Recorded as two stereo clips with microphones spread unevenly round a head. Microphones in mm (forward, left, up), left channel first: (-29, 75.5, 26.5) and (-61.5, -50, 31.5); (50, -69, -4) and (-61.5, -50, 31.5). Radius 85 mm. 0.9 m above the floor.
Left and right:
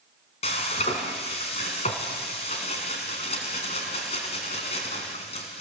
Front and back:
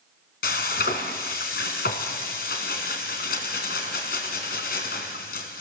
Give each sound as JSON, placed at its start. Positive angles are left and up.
{"t": 0.4, "sound": "frying", "azimuth_deg": 15, "distance_m": 2.5}